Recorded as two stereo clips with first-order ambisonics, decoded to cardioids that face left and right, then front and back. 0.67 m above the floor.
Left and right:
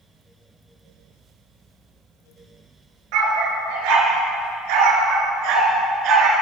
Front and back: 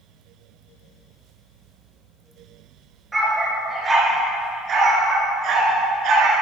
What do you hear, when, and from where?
3.1 s a dog barking: 100° right, 3.5 m; by 6.3 s 135° right, 3 m